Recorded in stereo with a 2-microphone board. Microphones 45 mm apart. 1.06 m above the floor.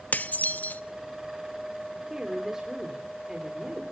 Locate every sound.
0.1 s dishes clattering: 40° left (ahead or behind), 0.7 m
2.1 s a woman speaking: 15° right (ahead or behind), 3 m